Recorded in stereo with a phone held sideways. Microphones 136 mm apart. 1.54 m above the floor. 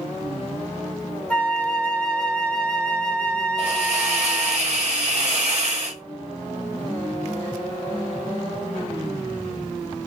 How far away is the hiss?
About 1.5 m.